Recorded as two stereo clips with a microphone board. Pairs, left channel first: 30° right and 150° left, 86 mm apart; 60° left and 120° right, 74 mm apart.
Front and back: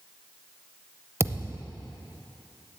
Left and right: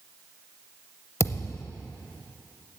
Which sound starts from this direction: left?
A thud, at 1.2 s.